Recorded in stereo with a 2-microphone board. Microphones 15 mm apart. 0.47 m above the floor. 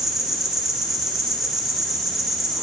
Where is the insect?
10° right (ahead or behind), 6.5 m.